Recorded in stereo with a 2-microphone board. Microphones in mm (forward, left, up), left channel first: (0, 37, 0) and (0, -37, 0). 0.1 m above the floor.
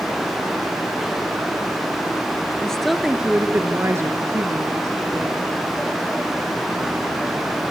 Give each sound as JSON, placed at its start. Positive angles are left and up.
{"t": 2.6, "sound": "a woman speaking", "side_deg": 10, "distance_m": 1.6}